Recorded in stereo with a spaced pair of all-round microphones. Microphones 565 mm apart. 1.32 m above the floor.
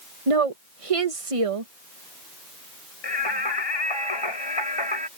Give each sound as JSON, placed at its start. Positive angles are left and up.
{"t": 0.3, "sound": "a woman speaking", "side_deg": -75}
{"t": 3.0, "sound": "singing", "side_deg": 55}